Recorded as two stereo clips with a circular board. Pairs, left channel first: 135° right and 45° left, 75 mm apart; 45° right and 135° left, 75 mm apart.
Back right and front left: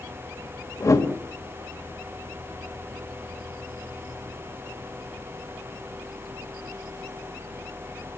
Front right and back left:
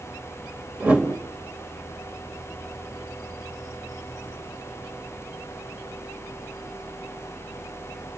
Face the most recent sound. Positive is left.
turn(degrees=-160)